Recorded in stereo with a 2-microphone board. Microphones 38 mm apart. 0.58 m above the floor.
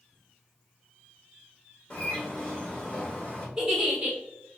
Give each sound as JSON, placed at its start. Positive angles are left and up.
{"t": 1.9, "sound": "a bird", "side_deg": 20, "distance_m": 1.6}
{"t": 3.6, "sound": "a giggle", "side_deg": -15, "distance_m": 1.4}